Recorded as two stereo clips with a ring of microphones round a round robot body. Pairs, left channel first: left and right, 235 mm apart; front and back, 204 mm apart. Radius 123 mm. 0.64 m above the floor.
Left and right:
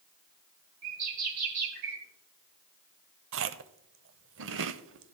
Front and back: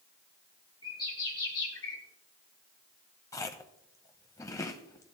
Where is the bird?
75° right, 3 m.